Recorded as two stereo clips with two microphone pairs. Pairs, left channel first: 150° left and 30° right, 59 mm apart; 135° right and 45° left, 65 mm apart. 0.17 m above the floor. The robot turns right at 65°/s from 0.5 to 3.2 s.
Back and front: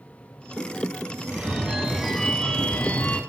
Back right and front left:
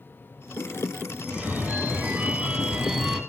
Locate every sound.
1.2 s a phone ringing: 5° right, 0.6 m; by 3.2 s 125° left, 0.6 m